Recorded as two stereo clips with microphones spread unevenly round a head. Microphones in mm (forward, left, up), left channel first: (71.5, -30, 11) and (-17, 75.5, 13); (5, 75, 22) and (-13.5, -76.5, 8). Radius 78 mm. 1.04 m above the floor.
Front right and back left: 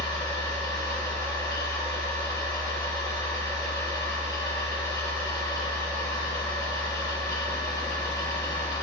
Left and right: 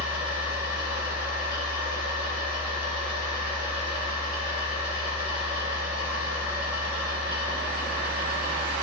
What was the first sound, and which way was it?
A machine running, 115° right.